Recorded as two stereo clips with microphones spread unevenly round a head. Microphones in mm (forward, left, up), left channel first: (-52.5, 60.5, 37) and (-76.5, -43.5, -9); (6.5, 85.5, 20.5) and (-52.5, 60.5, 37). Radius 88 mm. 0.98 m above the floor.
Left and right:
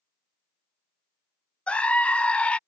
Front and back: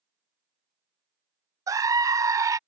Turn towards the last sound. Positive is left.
turn(degrees=180)